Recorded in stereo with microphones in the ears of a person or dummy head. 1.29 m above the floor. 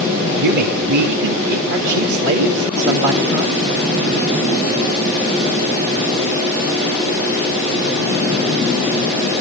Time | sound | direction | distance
0.4 | a man speaking | 65° right (ahead or behind) | 3 m